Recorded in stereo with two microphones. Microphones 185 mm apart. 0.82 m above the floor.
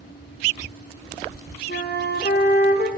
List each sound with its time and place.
1.7 s a flute: 60° left (ahead or behind), 1.0 m